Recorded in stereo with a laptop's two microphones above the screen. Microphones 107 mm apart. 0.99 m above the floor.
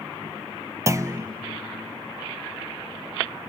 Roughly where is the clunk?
Right.